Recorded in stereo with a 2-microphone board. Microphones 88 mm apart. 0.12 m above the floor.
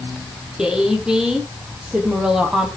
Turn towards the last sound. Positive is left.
turn(degrees=-5)  # may be behind; listen again after turning